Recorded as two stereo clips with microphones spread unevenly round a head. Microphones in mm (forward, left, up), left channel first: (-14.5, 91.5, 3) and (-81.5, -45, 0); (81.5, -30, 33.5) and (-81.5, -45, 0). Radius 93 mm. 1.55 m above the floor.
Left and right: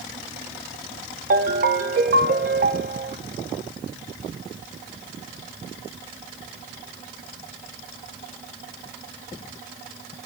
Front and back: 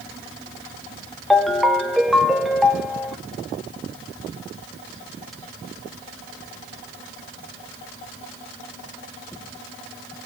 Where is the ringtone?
75° right, 0.8 m.